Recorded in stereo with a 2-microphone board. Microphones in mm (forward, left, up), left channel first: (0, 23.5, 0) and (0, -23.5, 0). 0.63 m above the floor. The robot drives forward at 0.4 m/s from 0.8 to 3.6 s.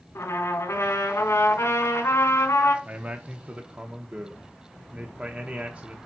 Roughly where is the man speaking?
Right.